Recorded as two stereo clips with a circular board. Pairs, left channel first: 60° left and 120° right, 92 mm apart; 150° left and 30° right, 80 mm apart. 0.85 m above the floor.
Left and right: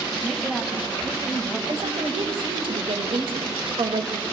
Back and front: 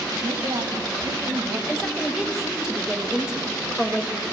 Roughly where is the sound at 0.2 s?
Ahead right.